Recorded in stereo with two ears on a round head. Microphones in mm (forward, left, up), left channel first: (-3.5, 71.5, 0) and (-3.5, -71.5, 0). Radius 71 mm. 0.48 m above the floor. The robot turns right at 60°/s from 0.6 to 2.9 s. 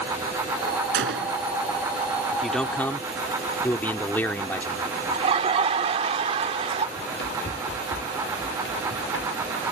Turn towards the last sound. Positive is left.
turn(degrees=80)